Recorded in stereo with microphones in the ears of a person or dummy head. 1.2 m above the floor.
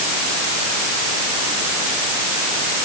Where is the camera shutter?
No camera shutter in this recording.